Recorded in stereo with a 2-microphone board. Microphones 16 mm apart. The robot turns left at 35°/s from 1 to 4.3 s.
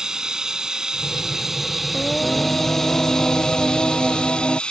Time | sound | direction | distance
0.0 | running water | 135° right | ?
1.9 | singing | 135° left | ?